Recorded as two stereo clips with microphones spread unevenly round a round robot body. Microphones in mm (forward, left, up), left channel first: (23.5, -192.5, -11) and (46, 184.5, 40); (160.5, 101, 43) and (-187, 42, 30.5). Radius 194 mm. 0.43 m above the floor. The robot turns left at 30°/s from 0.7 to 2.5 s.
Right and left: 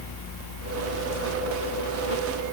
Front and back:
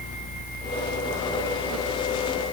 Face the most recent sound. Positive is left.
No sound to turn to.